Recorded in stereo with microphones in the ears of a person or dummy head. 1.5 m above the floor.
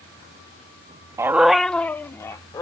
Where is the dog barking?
20° right (ahead or behind); by 2.6 s 20° left (ahead or behind).